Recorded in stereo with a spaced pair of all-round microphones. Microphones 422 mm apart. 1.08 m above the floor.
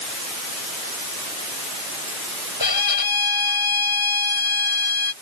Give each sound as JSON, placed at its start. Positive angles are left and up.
{"t": 2.6, "sound": "a violin", "side_deg": 60}